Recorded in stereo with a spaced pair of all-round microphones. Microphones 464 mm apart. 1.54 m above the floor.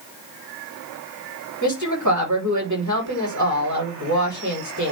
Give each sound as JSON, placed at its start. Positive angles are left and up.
{"t": 1.6, "sound": "a woman speaking", "side_deg": -40, "distance_m": 4.0}